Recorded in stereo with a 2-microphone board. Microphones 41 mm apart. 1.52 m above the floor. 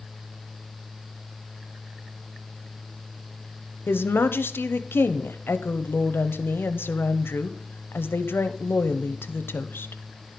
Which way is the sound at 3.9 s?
70° left (ahead or behind).